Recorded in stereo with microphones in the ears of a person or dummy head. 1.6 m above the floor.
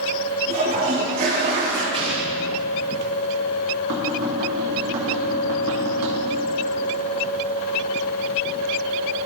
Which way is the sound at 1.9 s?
25° right (ahead or behind).